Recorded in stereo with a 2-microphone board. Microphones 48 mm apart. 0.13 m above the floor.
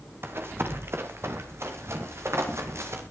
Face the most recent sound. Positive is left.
turn(degrees=-75)  # may be behind; listen again after turning